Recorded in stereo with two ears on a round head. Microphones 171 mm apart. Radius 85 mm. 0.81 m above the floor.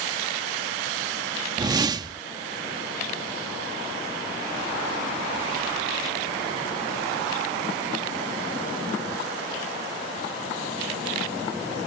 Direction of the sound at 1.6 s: 20° right (ahead or behind).